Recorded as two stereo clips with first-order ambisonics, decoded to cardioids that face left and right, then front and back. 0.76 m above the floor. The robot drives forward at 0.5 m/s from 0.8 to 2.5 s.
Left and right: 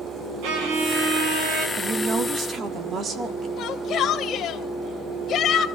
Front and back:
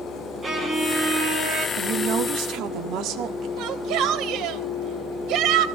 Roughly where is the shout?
Behind left.